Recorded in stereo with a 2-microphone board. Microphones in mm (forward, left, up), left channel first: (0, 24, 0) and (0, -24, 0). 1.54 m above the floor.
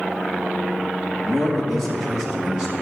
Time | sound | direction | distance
1.2 | a man speaking | 10° left (ahead or behind) | 3 m